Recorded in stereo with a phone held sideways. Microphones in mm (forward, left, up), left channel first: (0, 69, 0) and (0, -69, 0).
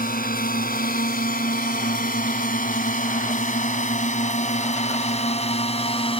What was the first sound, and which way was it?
A drone, 90° left.